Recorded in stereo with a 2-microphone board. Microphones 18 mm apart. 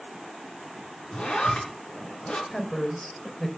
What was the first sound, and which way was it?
A zipper, 85° left.